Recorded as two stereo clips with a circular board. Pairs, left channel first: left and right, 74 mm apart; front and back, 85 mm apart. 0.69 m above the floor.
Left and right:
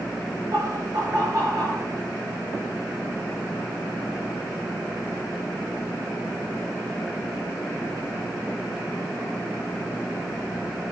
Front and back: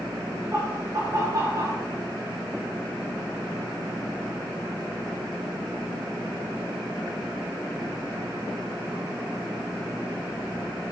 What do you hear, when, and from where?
0.5 s laughter: 125° right, 9 m; by 1.9 s 130° right, 11 m